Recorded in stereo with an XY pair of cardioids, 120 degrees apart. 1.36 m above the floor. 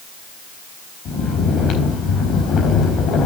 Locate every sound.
1.1 s snoring: 60° left, 4 m